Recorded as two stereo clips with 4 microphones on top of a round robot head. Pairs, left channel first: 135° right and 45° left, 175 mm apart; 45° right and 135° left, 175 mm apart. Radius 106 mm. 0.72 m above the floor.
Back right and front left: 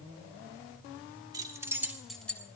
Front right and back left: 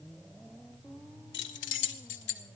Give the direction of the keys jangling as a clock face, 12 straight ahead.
1 o'clock.